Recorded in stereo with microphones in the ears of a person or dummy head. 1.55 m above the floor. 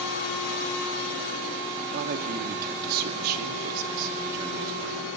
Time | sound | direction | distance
1.9 | a man speaking | 50° right (ahead or behind) | 2.5 m